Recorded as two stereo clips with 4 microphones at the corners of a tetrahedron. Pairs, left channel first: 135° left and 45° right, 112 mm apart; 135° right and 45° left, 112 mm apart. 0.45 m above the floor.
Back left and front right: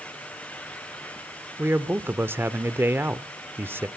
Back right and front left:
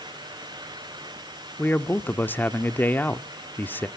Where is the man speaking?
85° right, 0.7 m.